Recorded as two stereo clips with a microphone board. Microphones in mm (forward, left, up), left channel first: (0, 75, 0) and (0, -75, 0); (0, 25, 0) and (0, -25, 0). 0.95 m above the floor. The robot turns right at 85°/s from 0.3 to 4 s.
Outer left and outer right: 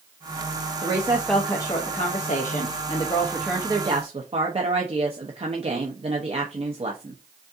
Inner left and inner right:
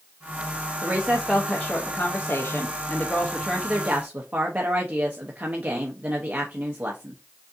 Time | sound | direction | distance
0.8 | a woman speaking | 40° right | 0.9 m